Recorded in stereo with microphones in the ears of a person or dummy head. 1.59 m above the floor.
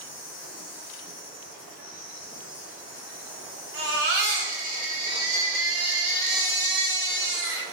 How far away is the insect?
About 1.2 m.